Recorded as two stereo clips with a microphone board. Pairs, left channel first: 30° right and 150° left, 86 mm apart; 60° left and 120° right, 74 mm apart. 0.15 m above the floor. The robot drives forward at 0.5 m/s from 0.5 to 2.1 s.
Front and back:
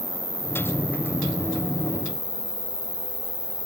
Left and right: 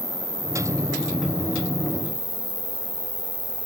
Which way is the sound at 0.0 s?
55° right.